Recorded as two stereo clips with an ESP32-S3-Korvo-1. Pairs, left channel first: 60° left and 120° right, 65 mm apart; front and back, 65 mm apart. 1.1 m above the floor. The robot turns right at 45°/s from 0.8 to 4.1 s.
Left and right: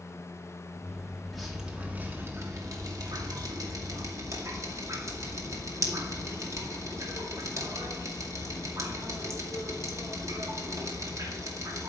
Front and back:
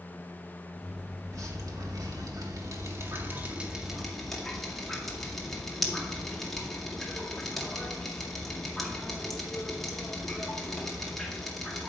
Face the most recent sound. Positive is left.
turn(degrees=-85)